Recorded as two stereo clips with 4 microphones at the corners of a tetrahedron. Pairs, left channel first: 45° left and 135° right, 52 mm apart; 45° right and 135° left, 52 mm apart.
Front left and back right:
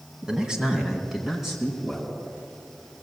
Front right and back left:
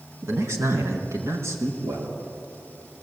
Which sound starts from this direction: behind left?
A man speaking, at 0.2 s.